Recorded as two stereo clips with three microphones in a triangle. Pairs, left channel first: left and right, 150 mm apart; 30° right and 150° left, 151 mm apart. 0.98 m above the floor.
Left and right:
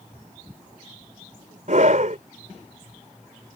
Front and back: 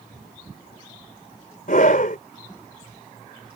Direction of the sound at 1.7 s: 55° right.